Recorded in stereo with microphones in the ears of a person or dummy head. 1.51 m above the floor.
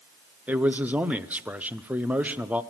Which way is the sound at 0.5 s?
5° right (ahead or behind).